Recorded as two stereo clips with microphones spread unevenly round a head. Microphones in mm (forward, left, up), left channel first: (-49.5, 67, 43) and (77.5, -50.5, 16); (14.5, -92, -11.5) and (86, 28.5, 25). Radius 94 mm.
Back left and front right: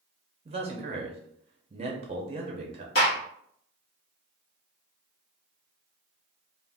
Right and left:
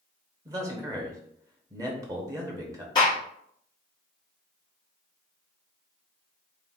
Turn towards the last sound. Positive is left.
turn(degrees=170)